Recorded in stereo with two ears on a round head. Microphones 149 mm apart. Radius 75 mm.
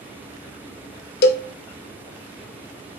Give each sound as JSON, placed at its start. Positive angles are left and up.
{"t": 1.2, "sound": "a cowbell", "side_deg": 65, "distance_m": 0.5}